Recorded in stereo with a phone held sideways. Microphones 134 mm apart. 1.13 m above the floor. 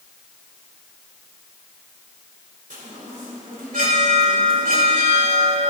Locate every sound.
2.7 s a chime: 85° right, 2.5 m